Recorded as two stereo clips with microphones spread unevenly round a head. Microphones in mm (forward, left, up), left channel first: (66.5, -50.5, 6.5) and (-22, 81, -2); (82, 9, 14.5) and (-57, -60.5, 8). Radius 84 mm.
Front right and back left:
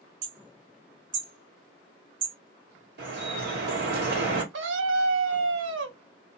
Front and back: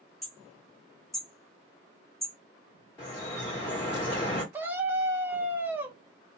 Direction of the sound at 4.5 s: 125° left.